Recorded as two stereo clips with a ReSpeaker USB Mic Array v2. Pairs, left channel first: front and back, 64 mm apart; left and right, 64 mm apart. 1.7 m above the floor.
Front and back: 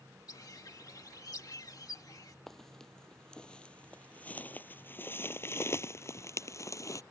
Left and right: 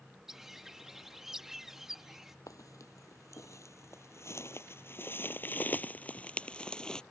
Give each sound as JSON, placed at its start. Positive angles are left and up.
{"t": 0.3, "sound": "a bird", "azimuth_deg": -5}
{"t": 2.5, "sound": "footsteps", "azimuth_deg": 85}